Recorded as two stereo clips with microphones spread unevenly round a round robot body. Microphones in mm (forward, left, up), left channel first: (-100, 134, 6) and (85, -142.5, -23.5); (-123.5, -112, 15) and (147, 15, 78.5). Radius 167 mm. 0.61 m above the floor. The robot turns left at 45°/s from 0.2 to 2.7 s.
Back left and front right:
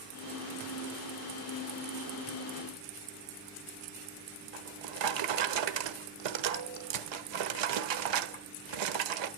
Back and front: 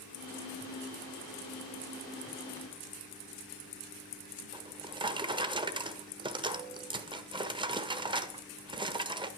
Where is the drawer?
50° right, 1.3 m.